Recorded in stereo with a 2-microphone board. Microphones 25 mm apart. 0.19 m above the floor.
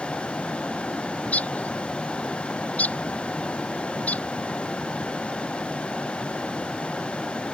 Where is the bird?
75° left (ahead or behind).